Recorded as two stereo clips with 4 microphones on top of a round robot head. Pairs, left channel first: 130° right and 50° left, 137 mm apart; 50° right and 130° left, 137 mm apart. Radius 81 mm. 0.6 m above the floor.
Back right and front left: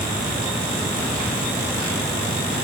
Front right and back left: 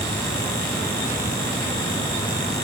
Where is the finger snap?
I don't hear a finger snap.